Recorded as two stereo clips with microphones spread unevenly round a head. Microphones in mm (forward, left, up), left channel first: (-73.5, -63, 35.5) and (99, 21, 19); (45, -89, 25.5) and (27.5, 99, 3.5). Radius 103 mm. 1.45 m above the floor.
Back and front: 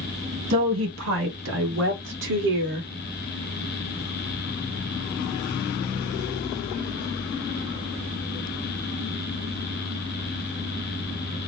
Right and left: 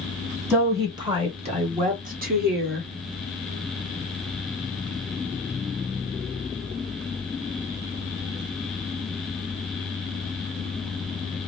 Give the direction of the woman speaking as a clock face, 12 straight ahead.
11 o'clock.